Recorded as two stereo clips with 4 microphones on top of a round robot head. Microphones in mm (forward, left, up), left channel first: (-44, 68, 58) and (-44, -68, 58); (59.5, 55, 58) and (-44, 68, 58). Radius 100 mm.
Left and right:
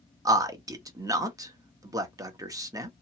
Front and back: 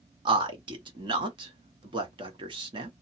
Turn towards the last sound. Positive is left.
turn(degrees=-150)